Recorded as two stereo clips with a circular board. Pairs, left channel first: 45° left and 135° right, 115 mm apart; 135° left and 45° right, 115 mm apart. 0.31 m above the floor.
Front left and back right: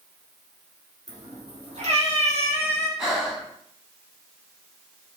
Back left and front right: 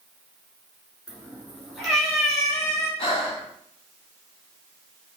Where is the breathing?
140° left, 1.0 m.